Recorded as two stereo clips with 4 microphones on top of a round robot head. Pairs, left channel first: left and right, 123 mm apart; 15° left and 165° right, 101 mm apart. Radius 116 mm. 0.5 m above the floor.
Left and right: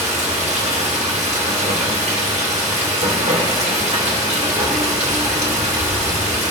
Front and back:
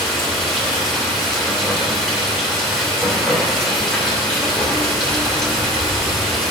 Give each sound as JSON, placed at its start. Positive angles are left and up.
{"t": 0.0, "sound": "running water", "azimuth_deg": -70, "distance_m": 2.0}